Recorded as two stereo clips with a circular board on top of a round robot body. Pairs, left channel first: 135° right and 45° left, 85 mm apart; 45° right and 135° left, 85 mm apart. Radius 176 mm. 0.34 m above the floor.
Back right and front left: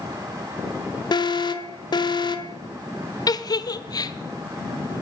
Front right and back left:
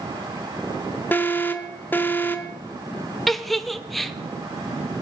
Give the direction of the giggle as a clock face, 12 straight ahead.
4 o'clock.